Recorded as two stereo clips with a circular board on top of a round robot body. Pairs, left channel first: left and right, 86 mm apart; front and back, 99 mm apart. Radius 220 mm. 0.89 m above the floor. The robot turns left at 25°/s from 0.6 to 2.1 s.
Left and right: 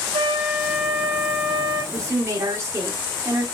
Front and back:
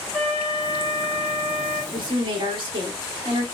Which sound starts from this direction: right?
A flute, at 0.1 s.